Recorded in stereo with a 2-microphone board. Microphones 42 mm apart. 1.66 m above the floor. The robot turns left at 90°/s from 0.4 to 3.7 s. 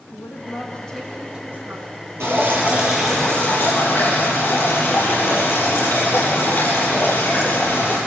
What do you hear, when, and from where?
0.1 s a woman speaking: 60° left, 3 m; by 1.9 s 80° right, 3 m
2.2 s dripping: 105° right, 7 m; by 8.0 s 120° left, 7 m